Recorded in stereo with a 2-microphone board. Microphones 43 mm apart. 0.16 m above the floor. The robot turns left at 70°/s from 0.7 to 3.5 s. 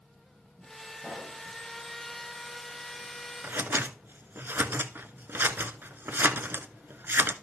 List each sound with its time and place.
1.0 s a pop: 20° left (ahead or behind), 6.5 m; by 1.4 s 50° left (ahead or behind), 6.5 m
3.4 s scissors: 60° right (ahead or behind), 0.6 m